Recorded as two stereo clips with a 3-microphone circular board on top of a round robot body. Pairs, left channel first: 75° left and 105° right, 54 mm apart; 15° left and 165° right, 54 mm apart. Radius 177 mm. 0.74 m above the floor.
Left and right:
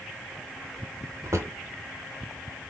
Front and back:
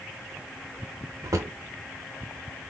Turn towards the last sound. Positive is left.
turn(degrees=-140)